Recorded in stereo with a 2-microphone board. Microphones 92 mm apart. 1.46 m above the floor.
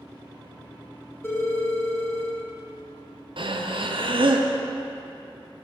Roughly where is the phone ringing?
Left.